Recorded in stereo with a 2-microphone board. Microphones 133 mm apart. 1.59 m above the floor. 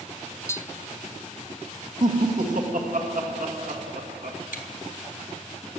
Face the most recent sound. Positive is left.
turn(degrees=75)  # may be behind; listen again after turning